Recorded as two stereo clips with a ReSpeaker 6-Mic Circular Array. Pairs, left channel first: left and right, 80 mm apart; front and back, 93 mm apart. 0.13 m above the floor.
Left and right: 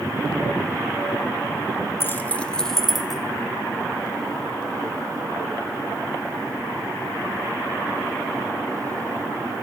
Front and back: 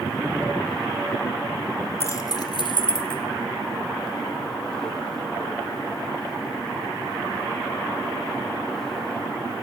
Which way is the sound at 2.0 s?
45° left.